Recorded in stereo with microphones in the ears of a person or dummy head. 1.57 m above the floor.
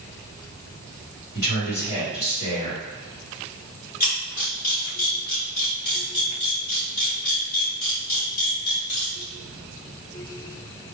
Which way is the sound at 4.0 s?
40° left (ahead or behind).